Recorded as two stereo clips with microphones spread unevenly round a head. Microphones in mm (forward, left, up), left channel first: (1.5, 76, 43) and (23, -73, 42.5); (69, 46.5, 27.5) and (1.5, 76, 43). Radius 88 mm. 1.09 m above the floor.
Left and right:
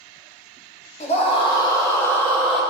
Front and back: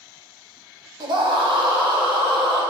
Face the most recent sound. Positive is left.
turn(degrees=180)